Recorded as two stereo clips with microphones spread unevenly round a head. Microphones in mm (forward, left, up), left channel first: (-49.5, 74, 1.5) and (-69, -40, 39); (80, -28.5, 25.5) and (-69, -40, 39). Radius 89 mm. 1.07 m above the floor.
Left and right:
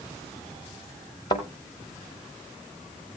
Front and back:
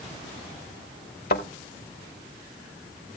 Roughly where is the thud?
Ahead.